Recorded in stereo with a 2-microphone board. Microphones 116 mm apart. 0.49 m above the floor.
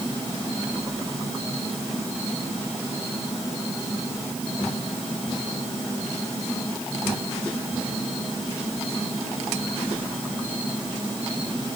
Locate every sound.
Only background noise.